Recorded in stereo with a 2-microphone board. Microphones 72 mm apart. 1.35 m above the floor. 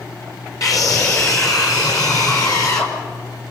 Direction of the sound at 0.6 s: 45° left (ahead or behind).